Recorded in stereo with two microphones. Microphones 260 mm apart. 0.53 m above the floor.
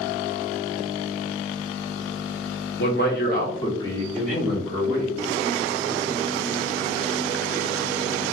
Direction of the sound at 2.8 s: 45° left (ahead or behind).